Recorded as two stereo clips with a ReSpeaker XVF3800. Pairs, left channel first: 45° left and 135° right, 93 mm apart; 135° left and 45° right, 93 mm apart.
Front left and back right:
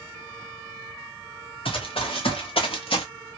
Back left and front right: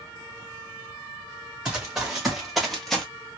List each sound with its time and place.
1.6 s running footsteps: 40° left, 1.9 m; by 3.0 s 50° left, 1.1 m